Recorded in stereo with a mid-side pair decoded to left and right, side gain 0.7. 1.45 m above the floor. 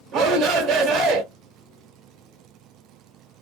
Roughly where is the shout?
Ahead right.